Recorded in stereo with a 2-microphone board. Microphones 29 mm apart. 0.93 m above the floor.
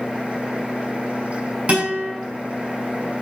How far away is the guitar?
About 6.5 m.